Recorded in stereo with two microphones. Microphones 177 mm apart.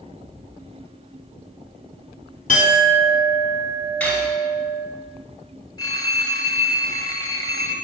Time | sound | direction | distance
2.5 | a clink | 55° left (ahead or behind) | 1.4 m
4.0 | cutlery clinking | 5° left (ahead or behind) | 2.5 m
5.8 | a phone ringing | 20° left (ahead or behind) | 0.9 m